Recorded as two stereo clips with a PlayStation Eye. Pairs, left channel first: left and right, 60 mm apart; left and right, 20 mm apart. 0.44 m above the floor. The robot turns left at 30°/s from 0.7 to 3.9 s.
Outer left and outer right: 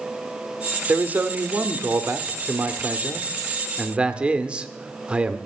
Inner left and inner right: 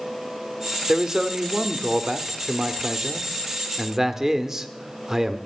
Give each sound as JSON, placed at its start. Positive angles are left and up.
{"t": 0.9, "sound": "a man speaking", "azimuth_deg": -55, "distance_m": 0.8}